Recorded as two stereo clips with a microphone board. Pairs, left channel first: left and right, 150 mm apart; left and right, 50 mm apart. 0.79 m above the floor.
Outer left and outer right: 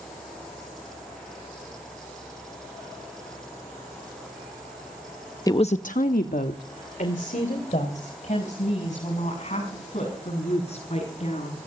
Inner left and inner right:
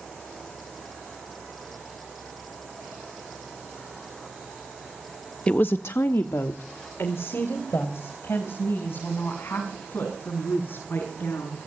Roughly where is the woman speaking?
Left.